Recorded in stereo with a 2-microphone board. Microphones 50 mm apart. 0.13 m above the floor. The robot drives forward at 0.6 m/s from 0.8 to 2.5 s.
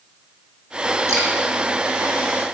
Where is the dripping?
75° right (ahead or behind), 2 m; by 1.3 s 70° right (ahead or behind), 2 m.